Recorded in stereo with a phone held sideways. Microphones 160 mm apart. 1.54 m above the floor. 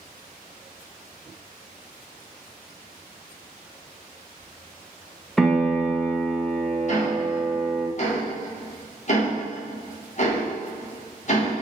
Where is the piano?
5° left (ahead or behind), 0.6 m.